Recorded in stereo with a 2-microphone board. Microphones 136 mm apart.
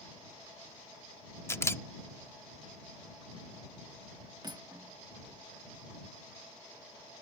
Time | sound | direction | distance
1.5 | a camera shutter | 20° left (ahead or behind) | ?
4.4 | cutlery clinking | 30° right (ahead or behind) | ?